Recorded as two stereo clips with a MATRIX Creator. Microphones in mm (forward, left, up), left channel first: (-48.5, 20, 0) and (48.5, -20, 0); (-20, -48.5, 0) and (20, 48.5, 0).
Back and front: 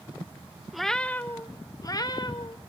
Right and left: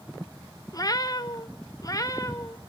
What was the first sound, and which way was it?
A cat meowing, 110° right.